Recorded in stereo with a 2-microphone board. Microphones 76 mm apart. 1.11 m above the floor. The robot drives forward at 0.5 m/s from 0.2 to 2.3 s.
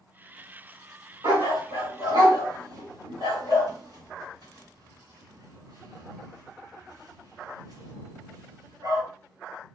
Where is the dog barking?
70° right (ahead or behind), 2.5 m; by 9.0 s 65° right (ahead or behind), 2.5 m.